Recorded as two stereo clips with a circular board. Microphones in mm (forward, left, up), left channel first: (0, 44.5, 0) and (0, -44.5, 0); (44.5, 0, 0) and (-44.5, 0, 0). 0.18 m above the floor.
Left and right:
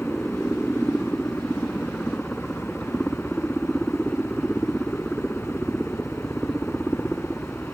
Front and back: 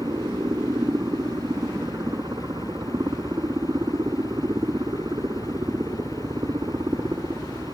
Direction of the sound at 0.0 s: 175° left.